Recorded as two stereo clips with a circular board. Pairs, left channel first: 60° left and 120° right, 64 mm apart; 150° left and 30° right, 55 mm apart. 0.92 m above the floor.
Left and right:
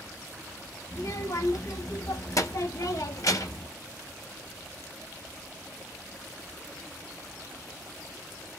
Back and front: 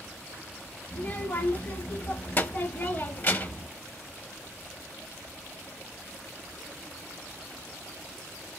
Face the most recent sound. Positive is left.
turn(degrees=95)